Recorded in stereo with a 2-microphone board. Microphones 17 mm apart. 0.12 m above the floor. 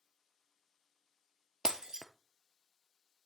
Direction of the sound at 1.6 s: 40° right (ahead or behind).